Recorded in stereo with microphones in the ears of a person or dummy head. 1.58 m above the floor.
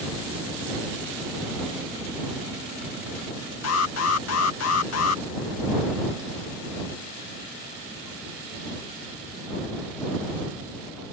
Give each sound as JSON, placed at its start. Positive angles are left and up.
{"t": 3.6, "sound": "an alarm", "side_deg": 75}